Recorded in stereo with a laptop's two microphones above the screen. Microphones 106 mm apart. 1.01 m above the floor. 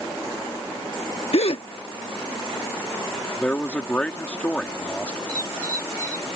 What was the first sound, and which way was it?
A gasp, 70° left (ahead or behind).